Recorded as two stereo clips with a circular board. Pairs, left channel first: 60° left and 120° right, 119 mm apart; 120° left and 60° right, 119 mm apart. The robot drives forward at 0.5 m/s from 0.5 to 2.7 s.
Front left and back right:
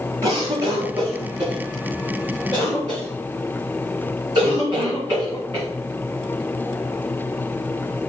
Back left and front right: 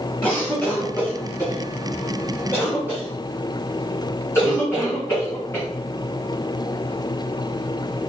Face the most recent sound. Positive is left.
turn(degrees=-175)